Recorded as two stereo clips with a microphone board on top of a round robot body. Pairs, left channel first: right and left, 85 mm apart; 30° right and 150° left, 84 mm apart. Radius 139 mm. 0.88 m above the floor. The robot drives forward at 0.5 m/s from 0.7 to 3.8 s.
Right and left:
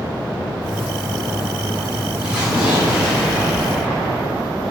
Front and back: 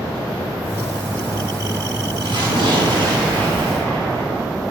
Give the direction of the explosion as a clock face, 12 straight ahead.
6 o'clock.